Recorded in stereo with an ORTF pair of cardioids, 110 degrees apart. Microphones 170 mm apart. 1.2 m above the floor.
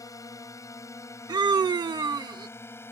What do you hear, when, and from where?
0.0 s a drone: 20° left; by 2.9 s 15° left
1.3 s a scream: 25° right